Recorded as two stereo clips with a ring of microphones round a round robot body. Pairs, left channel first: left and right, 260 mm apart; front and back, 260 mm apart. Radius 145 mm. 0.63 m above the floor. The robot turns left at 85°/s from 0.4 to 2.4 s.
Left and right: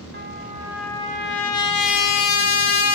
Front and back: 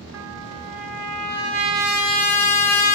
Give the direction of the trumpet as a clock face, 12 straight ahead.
5 o'clock.